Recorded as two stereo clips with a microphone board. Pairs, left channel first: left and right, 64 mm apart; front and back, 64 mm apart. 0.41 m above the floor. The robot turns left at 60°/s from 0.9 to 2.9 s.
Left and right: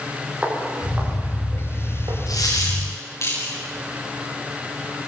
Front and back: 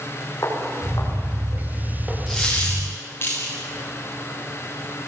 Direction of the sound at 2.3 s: 95° left.